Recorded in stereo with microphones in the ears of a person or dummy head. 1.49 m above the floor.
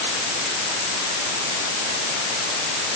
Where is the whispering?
I don't hear whispering.